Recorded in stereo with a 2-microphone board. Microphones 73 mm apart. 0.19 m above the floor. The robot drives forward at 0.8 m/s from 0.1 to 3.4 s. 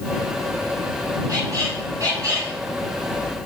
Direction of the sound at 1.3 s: 45° right (ahead or behind).